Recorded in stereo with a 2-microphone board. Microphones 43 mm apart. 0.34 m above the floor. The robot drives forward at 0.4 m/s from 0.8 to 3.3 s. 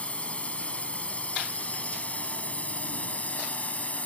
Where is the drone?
30° left (ahead or behind); by 4.1 s 35° left (ahead or behind).